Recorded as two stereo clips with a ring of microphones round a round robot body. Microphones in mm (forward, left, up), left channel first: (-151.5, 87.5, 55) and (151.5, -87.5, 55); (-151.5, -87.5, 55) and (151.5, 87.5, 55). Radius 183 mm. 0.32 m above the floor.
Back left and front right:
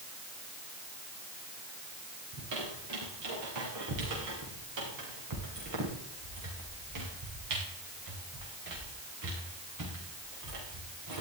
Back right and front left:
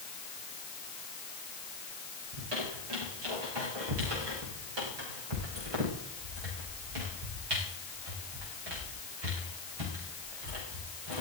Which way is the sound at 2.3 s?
10° left.